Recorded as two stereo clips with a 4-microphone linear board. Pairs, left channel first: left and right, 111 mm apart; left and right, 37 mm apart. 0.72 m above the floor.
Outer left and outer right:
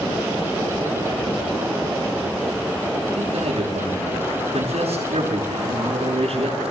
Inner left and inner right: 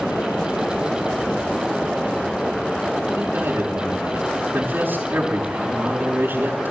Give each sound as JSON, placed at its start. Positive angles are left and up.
{"t": 3.1, "sound": "a man speaking", "side_deg": -85, "distance_m": 7.0}